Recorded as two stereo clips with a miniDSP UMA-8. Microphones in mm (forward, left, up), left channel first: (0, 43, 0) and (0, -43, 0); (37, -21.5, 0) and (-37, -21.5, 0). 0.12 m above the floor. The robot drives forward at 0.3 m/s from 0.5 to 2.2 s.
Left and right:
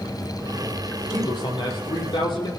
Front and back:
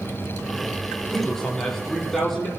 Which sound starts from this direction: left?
A man speaking, at 1.1 s.